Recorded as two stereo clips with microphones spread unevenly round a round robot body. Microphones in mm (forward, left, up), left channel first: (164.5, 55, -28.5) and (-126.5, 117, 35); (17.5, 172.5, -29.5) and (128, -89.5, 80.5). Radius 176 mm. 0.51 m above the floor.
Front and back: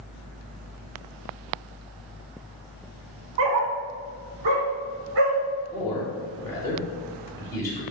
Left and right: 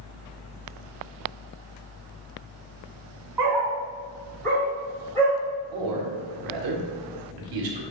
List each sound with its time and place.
3.4 s a dog barking: 140° right, 0.9 m; by 5.4 s 160° right, 2.5 m
5.7 s a man speaking: 80° right, 1.9 m